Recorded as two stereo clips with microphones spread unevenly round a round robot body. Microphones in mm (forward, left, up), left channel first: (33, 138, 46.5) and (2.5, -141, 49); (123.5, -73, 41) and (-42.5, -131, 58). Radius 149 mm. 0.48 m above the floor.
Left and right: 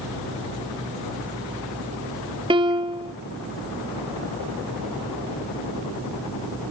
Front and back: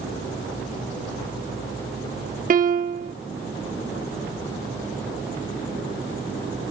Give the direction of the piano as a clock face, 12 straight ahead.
5 o'clock.